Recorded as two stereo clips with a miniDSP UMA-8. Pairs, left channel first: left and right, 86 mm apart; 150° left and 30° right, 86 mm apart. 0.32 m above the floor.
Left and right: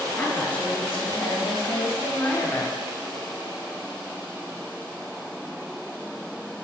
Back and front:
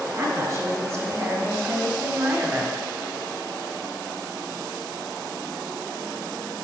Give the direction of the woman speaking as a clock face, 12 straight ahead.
11 o'clock.